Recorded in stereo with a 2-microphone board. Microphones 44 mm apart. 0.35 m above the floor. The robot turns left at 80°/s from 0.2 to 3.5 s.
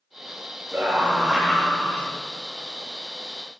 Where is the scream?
125° right, 1.6 m; by 2.0 s 125° left, 1.6 m.